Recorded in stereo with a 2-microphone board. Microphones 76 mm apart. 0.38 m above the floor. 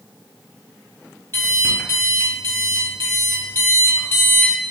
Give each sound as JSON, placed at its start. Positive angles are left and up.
{"t": 1.3, "sound": "an alarm clock", "side_deg": 30, "distance_m": 1.4}